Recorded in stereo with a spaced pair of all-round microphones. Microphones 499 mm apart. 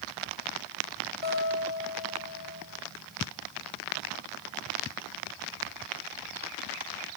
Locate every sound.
1.2 s a guitar: 45° left (ahead or behind), 5 m